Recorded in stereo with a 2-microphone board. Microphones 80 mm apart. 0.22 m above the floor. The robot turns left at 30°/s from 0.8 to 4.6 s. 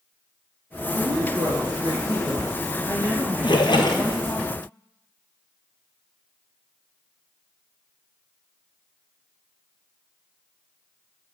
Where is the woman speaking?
95° right, 4 m; by 4.4 s 160° left, 4 m.